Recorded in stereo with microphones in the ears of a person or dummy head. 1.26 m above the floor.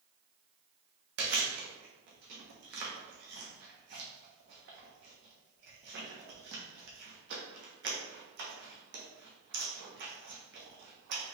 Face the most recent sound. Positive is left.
turn(degrees=-60)  # may be behind; listen again after turning